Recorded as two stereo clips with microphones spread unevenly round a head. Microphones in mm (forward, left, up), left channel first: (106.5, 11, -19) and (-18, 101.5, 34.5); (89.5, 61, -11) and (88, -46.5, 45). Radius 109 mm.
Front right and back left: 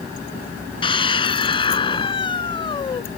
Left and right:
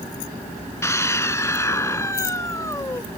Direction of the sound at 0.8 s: 25° left.